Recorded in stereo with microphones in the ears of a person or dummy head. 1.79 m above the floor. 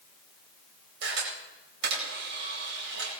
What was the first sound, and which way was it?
A camera shutter, 70° right (ahead or behind).